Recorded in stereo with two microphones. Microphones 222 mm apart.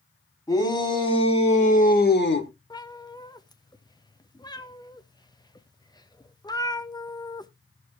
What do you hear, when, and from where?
0.5 s a shout: 15° left (ahead or behind), 3.5 m; by 2.5 s 65° left (ahead or behind), 1.4 m
2.7 s a cat meowing: 20° left (ahead or behind), 0.7 m